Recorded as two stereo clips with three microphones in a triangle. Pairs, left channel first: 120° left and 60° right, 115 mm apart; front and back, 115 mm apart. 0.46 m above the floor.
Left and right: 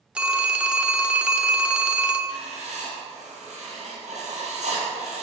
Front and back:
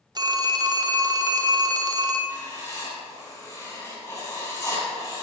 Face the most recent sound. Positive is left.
turn(degrees=-60)